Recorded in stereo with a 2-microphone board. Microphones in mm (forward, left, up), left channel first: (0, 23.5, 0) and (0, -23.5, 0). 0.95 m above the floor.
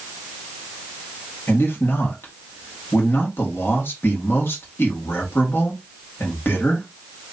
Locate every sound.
1.5 s a man speaking: 55° left (ahead or behind), 1.8 m